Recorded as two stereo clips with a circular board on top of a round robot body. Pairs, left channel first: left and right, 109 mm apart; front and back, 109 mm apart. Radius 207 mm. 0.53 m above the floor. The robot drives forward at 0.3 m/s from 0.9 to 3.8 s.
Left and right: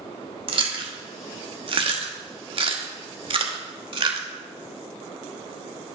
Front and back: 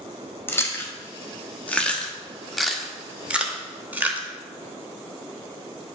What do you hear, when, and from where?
0.5 s chewing: 65° right, 1.5 m; by 4.3 s 110° right, 1.4 m